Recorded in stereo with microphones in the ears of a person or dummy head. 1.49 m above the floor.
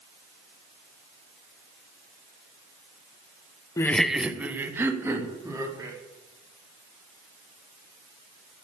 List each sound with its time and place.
3.8 s laughter: 20° left (ahead or behind), 0.6 m; by 6.0 s 20° right (ahead or behind), 4 m